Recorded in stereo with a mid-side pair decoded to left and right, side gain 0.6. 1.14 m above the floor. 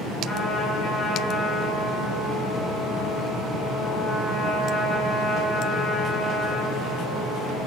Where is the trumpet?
25° left, 9 m.